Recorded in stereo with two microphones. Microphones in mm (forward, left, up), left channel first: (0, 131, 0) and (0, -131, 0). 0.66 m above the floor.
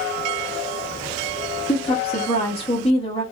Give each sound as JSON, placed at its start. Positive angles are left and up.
{"t": 1.7, "sound": "a woman speaking", "side_deg": 20, "distance_m": 1.1}